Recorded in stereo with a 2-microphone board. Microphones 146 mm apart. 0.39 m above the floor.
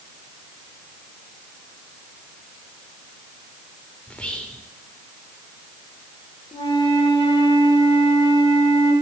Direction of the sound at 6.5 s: 35° left (ahead or behind).